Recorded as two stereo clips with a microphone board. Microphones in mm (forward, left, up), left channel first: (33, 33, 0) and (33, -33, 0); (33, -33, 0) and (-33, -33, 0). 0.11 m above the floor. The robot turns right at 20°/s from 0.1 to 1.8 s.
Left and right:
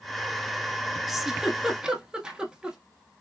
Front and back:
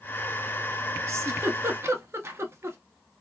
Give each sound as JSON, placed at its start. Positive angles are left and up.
{"t": 1.1, "sound": "a giggle", "azimuth_deg": -175, "distance_m": 0.6}